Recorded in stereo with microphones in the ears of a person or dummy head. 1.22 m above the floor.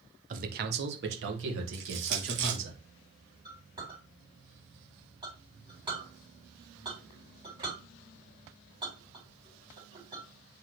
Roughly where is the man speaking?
Right.